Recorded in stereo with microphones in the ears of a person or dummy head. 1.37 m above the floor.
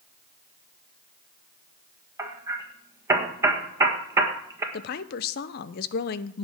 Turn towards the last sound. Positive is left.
turn(degrees=50)  # may be behind; listen again after turning